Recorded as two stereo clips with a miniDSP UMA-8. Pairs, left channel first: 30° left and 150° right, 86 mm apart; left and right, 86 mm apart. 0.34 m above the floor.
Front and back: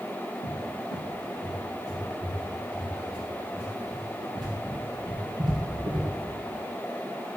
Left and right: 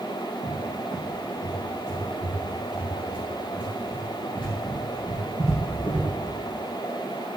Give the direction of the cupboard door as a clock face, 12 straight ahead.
6 o'clock.